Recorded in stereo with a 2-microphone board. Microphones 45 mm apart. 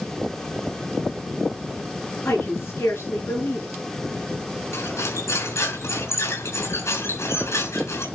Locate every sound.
2.2 s a woman speaking: 65° left (ahead or behind), 6 m
4.7 s cutlery clinking: 85° left, 5.5 m